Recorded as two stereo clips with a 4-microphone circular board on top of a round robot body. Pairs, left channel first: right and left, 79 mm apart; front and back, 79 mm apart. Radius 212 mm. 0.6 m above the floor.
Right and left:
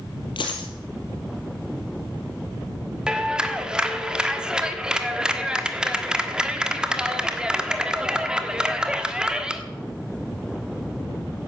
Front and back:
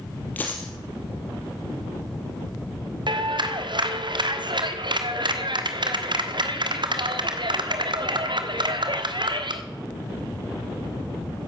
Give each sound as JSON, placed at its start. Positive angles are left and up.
{"t": 0.4, "sound": "a dropped coin", "azimuth_deg": -70, "distance_m": 2.0}
{"t": 3.1, "sound": "a clap", "azimuth_deg": 170, "distance_m": 1.5}